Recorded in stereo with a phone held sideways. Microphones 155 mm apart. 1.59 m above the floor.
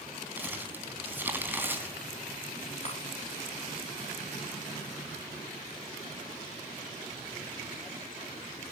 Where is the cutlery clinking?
45° left (ahead or behind), 4.5 m.